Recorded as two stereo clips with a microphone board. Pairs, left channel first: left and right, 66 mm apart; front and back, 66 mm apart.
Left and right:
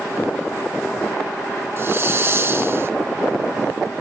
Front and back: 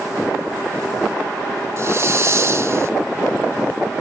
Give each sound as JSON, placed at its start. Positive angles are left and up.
{"t": 1.8, "sound": "a hiss", "azimuth_deg": -135, "distance_m": 0.5}